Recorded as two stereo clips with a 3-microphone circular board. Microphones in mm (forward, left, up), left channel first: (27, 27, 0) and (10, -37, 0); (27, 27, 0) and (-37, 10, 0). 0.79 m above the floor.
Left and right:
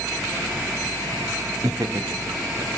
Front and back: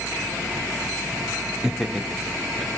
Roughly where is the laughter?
Right.